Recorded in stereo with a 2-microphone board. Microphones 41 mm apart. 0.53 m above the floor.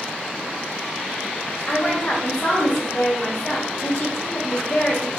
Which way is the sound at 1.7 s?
30° left (ahead or behind).